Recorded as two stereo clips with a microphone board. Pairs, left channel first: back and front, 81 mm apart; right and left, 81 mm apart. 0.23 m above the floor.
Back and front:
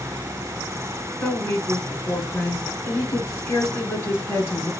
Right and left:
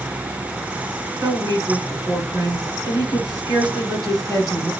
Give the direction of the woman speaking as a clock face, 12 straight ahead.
8 o'clock.